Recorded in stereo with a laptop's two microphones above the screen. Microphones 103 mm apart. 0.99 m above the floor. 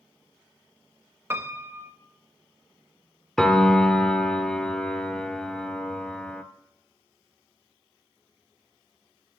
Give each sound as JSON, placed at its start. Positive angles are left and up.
{"t": 1.3, "sound": "a piano", "side_deg": -25, "distance_m": 0.8}
{"t": 3.4, "sound": "a piano", "side_deg": 5, "distance_m": 0.7}